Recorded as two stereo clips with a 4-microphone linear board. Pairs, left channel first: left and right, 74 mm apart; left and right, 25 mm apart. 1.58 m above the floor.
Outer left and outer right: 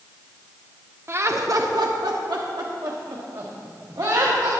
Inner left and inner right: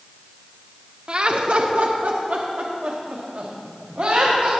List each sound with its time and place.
1.1 s laughter: 35° right (ahead or behind), 0.8 m; by 4.5 s 55° right (ahead or behind), 2 m